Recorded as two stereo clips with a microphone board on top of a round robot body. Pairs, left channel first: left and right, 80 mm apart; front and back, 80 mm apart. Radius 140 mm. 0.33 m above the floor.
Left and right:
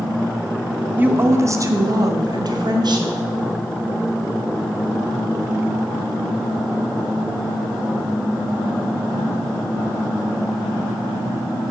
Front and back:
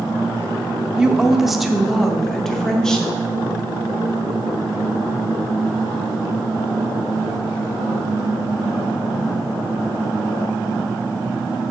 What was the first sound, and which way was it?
A woman speaking, 115° right.